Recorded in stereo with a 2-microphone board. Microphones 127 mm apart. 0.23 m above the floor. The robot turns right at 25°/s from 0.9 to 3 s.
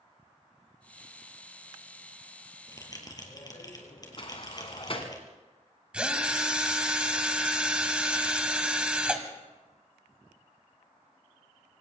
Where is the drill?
10° right (ahead or behind), 1.6 m.